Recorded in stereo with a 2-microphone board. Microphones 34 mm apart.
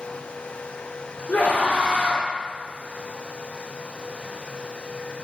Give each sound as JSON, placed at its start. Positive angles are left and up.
{"t": 1.3, "sound": "a scream", "side_deg": 45, "distance_m": 2.5}